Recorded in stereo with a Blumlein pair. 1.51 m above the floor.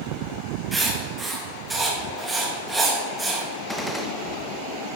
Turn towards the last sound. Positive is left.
turn(degrees=5)